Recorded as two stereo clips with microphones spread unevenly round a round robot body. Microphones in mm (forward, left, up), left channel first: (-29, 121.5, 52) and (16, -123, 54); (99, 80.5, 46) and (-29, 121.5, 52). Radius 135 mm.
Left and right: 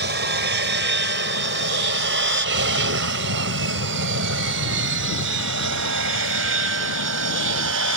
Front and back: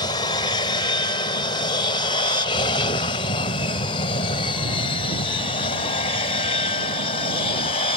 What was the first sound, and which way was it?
An aircraft, 60° right.